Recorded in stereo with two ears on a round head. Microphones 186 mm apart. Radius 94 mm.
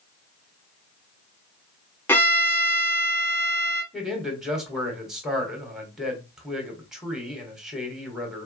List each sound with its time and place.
2.1 s a violin: 10° left (ahead or behind), 1.1 m
3.9 s a man speaking: centre (ahead or behind), 1.7 m